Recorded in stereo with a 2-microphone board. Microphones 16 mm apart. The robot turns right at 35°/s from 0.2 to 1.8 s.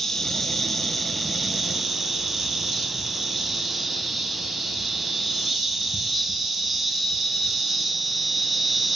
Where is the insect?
145° left, 1.1 m; by 9.0 s 160° right, 1.1 m.